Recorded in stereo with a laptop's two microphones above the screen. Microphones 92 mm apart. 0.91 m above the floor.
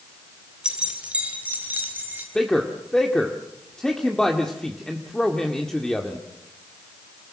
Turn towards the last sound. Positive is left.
turn(degrees=5)  # may be behind; listen again after turning